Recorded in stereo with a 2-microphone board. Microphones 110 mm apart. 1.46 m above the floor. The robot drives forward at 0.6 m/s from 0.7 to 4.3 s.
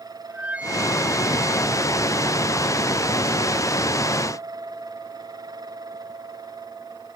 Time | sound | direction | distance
0.3 | a flute | 10° right (ahead or behind) | ?